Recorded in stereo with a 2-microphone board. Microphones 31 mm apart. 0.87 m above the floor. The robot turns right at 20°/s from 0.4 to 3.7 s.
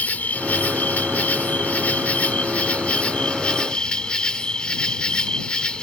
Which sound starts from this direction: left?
An insect, at 0.0 s.